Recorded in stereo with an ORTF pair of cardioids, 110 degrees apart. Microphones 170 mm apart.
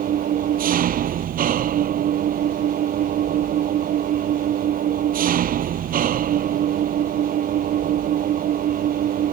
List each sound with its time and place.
0.0 s an engine running: 55° right